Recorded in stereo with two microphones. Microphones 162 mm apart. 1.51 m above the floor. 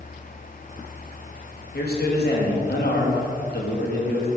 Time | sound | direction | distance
1.7 | a man speaking | 70° left (ahead or behind) | 2.0 m